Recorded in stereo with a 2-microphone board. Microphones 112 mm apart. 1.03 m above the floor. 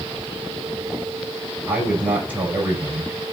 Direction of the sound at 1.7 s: 10° right (ahead or behind).